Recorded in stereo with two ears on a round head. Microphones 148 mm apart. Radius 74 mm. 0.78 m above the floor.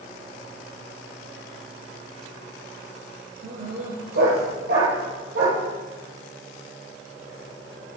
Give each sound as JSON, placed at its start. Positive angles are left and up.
{"t": 3.4, "sound": "a dog barking", "side_deg": -65, "distance_m": 7.0}